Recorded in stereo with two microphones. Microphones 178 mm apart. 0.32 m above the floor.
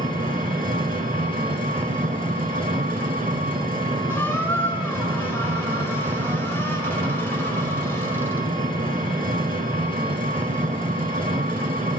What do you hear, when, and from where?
0.0 s an engine running: 50° right (ahead or behind), 1.1 m
4.1 s a squeak: 10° left (ahead or behind), 0.7 m